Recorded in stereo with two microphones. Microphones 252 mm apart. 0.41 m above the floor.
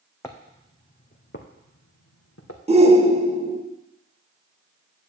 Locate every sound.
0.2 s footsteps: 10° left (ahead or behind), 1.4 m; by 2.6 s 75° left (ahead or behind), 1.9 m
2.7 s a shout: 25° right (ahead or behind), 0.9 m